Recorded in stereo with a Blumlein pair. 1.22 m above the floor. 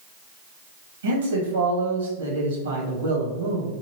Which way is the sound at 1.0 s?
65° right.